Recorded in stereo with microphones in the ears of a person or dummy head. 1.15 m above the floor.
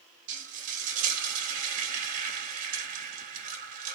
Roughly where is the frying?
Right.